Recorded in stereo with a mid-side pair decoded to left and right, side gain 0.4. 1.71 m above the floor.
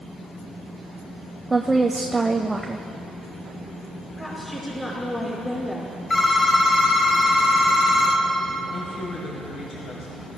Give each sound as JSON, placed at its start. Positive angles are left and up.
{"t": 1.5, "sound": "a woman speaking", "azimuth_deg": -20, "distance_m": 0.7}
{"t": 4.2, "sound": "a woman speaking", "azimuth_deg": 20, "distance_m": 4.5}
{"t": 6.1, "sound": "a phone ringing", "azimuth_deg": 30, "distance_m": 1.9}
{"t": 8.7, "sound": "a woman speaking", "azimuth_deg": 70, "distance_m": 2.0}